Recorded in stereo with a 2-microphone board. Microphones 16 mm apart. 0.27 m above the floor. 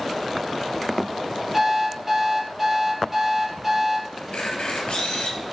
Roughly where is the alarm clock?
Centre.